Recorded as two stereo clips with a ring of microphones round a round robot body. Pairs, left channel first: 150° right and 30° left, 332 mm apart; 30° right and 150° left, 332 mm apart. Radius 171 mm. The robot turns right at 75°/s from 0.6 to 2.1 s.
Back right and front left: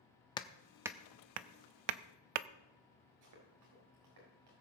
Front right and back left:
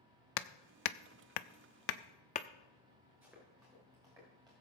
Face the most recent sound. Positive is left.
turn(degrees=70)